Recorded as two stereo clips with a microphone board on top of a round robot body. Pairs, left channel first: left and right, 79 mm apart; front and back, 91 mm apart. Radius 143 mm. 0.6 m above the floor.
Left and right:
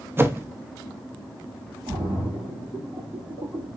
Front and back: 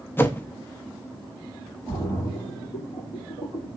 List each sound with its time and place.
0.2 s a whoosh: 50° right, 0.7 m
1.9 s a splash: 60° right, 2 m